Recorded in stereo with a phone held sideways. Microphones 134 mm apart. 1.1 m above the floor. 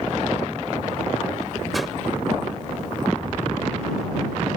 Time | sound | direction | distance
1.7 | a whoosh | centre (ahead or behind) | ?